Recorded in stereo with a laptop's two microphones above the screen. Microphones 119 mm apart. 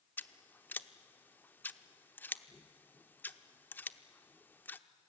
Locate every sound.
0.2 s scissors: 15° left (ahead or behind), 0.9 m